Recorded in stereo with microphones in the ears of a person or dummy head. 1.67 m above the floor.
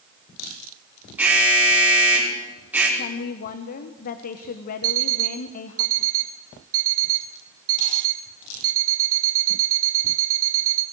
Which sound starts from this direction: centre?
An alarm, at 1.2 s.